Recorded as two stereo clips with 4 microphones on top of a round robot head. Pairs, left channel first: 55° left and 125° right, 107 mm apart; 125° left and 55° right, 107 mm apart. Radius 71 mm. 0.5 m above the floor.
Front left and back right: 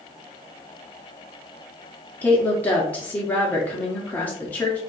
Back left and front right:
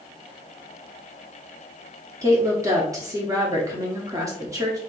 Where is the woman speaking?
10° right, 1.1 m.